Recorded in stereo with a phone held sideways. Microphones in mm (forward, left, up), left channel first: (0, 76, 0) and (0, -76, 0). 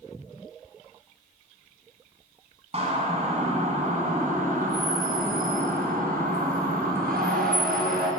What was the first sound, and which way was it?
A siren, 40° right (ahead or behind).